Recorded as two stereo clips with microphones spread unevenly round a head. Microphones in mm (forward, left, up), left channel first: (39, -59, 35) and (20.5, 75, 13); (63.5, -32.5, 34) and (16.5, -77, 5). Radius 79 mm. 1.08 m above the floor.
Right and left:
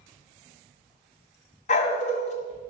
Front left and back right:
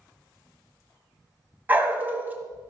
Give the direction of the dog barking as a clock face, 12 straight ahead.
2 o'clock.